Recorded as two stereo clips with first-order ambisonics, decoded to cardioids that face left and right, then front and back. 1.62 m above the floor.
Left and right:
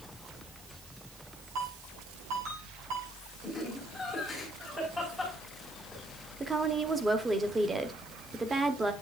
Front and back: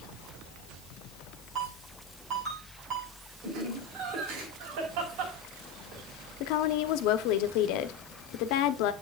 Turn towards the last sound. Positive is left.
turn(degrees=-10)